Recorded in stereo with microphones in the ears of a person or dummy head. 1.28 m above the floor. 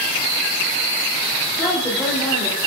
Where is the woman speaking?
5° left (ahead or behind), 3 m.